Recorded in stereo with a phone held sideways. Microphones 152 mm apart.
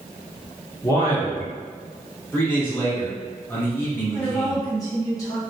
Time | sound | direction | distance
0.8 | a man speaking | 25° left (ahead or behind) | 0.8 m
2.3 | a man speaking | 15° left (ahead or behind) | 1.2 m
4.1 | a woman speaking | 25° left (ahead or behind) | 1.3 m